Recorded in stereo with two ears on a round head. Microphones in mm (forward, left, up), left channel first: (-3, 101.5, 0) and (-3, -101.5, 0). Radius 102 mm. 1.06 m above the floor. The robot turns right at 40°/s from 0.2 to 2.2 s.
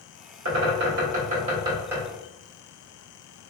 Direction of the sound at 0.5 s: 65° right (ahead or behind).